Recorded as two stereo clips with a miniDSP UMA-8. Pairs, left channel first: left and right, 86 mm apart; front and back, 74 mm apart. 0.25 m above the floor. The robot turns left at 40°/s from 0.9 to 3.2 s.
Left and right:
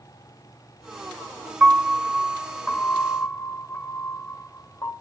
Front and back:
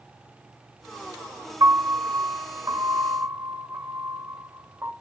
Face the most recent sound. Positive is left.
turn(degrees=120)